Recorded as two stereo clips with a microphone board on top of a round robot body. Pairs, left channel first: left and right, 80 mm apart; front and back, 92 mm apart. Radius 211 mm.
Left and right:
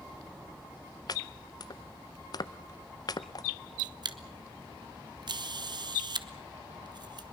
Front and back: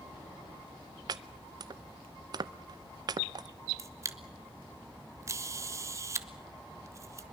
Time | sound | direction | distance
1.1 | chopping | 135° left | 0.6 m
3.8 | a camera shutter | 120° right | 1.4 m